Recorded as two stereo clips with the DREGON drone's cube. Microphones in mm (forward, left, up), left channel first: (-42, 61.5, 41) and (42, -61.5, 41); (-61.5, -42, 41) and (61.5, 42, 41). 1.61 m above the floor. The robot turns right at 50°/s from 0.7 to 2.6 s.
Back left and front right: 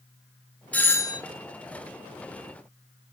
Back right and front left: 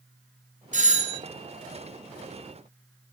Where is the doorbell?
45° left, 1.0 m; by 1.2 s 70° left, 1.0 m.